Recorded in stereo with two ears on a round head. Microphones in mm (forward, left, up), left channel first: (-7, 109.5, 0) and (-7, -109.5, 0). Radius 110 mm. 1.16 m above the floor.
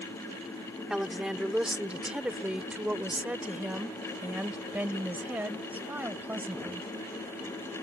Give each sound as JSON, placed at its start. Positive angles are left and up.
{"t": 0.9, "sound": "a woman speaking", "side_deg": -5}